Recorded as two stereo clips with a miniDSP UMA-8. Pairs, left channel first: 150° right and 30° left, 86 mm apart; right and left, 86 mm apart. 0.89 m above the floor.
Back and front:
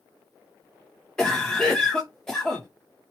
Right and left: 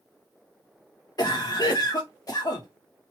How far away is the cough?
About 0.5 m.